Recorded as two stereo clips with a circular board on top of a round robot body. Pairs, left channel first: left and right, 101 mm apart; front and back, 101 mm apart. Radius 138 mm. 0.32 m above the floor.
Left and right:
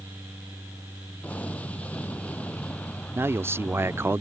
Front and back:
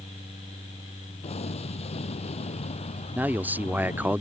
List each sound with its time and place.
1.2 s an explosion: 15° left
3.1 s a man speaking: 125° right